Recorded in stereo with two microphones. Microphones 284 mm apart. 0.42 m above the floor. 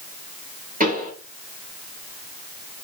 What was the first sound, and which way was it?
A pop, 25° right (ahead or behind).